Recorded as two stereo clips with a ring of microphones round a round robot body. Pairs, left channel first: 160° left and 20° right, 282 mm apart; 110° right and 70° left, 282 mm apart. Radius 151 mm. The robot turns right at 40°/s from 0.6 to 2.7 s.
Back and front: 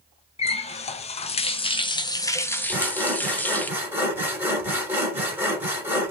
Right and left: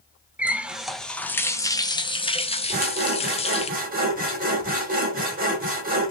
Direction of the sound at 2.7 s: 55° left.